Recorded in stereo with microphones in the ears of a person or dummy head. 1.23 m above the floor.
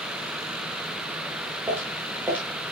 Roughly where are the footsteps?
Centre.